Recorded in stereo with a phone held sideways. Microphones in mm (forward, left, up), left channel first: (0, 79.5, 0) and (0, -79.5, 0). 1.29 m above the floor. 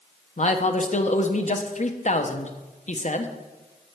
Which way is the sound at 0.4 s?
45° left (ahead or behind).